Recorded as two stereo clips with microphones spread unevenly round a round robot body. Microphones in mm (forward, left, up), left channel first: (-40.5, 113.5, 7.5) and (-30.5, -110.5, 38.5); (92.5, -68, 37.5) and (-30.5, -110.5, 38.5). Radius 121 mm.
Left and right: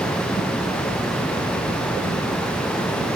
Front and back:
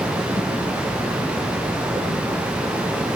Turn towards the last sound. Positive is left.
No sound to turn to.